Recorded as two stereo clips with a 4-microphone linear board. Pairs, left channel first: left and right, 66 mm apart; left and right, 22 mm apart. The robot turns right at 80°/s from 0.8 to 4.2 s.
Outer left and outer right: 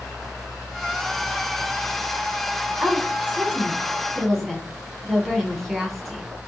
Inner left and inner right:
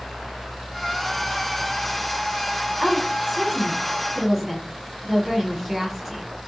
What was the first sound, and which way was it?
A woman speaking, 20° right (ahead or behind).